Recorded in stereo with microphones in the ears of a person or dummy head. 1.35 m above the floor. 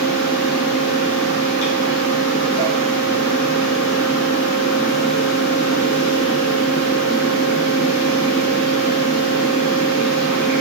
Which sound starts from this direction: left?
A fan, at 0.0 s.